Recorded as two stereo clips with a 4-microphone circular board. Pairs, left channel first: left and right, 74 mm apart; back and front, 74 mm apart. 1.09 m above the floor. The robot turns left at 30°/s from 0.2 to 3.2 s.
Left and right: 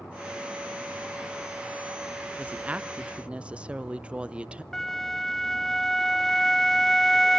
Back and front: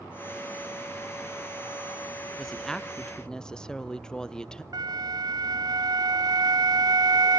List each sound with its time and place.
2.4 s a woman speaking: 105° right, 0.5 m; by 4.6 s 130° right, 0.5 m
4.7 s a flute: 5° left, 0.5 m